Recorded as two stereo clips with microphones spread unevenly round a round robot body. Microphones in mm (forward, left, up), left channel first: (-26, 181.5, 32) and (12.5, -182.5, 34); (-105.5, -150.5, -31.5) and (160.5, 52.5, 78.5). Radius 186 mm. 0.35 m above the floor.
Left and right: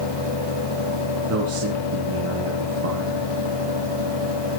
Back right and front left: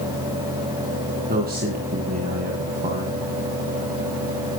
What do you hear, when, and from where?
1.3 s a man speaking: 30° right, 3 m